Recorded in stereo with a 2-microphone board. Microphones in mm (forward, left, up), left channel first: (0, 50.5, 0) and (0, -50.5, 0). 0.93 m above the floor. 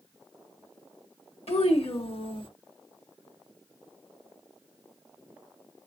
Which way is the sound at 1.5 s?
80° left.